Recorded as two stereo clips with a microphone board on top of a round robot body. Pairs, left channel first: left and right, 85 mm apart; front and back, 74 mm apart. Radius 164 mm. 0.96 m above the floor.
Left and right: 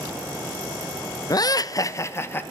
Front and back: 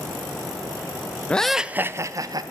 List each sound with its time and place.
1.3 s laughter: 70° left, 0.6 m; by 2.4 s 155° left, 0.8 m